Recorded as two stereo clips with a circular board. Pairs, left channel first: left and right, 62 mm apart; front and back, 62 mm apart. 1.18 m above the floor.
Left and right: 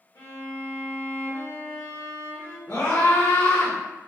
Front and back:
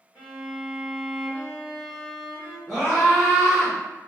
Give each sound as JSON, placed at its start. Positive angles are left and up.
{"t": 0.1, "sound": "a violin", "azimuth_deg": 85, "distance_m": 1.5}
{"t": 2.7, "sound": "a scream", "azimuth_deg": 85, "distance_m": 1.4}